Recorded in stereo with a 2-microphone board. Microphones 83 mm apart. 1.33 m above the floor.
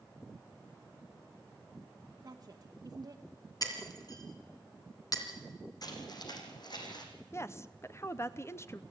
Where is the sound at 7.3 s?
35° left (ahead or behind), 0.7 m.